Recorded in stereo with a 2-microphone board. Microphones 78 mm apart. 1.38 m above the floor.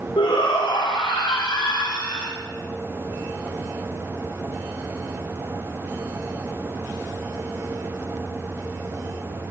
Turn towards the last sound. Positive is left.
turn(degrees=85)